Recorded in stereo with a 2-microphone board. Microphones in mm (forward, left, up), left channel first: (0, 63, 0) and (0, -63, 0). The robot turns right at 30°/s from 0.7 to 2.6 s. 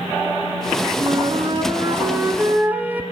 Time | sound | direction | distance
1.0 | a flute | 65° right | 1.2 m